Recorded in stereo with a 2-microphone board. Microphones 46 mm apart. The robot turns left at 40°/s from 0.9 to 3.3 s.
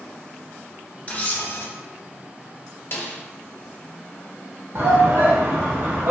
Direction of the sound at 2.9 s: 45° left (ahead or behind).